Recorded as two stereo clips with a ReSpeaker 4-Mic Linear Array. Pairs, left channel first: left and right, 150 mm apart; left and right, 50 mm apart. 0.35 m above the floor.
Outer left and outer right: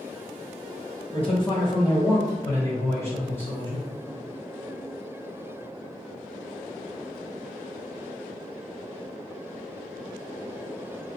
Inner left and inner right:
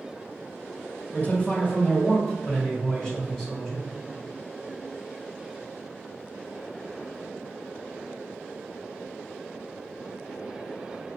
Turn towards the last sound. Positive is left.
turn(degrees=10)  # may be behind; listen again after turning